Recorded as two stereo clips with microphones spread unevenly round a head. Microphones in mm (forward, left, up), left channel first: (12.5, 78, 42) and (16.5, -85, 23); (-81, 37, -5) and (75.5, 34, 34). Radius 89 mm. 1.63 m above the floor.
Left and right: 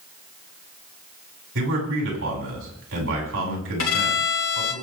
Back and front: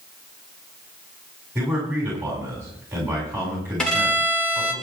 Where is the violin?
90° left, 4.5 m.